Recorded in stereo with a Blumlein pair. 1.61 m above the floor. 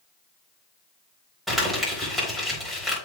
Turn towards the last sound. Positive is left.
turn(degrees=-5)